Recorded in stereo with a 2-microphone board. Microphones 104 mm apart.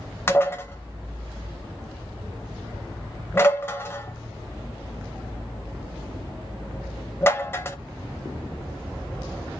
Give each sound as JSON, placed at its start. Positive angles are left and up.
{"t": 0.3, "sound": "dishes clattering", "side_deg": 25, "distance_m": 0.6}